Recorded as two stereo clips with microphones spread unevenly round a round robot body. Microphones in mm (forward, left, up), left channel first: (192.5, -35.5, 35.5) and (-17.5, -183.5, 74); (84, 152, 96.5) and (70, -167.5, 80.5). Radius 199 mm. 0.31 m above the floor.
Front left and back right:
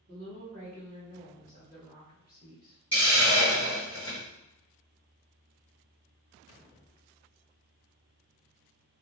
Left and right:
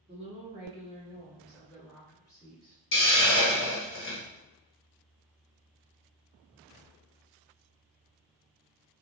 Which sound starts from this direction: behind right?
A woman speaking, at 0.1 s.